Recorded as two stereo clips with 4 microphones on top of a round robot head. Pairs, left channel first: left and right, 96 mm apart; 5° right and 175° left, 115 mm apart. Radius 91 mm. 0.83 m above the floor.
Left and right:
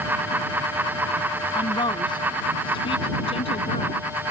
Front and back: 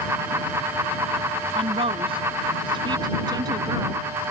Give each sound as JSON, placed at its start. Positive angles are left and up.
{"t": 1.6, "sound": "a woman speaking", "azimuth_deg": 135}